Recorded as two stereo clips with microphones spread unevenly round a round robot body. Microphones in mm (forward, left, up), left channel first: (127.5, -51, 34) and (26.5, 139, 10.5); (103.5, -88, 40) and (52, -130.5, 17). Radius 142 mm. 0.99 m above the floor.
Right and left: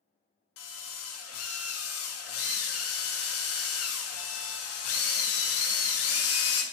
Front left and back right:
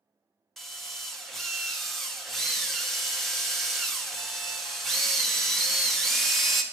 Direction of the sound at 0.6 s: 55° right.